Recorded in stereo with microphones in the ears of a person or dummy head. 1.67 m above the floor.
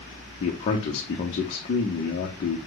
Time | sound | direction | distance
0.4 | a man speaking | 30° left (ahead or behind) | 0.7 m